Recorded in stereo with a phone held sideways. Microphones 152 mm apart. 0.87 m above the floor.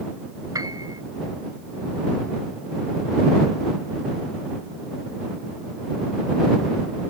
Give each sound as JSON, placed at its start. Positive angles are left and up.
{"t": 0.5, "sound": "a piano", "side_deg": -20}